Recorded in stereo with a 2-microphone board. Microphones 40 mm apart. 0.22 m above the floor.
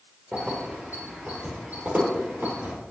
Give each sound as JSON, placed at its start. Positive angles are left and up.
{"t": 0.3, "sound": "keys jangling", "side_deg": -30, "distance_m": 3.5}